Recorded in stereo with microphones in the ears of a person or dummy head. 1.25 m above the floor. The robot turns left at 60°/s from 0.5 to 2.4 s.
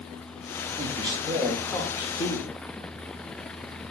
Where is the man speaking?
140° right, 0.7 m; by 2.5 s 125° left, 0.7 m.